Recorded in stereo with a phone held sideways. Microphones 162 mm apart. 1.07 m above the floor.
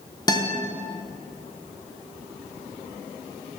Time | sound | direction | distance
0.3 | a guitar | 25° left (ahead or behind) | 0.7 m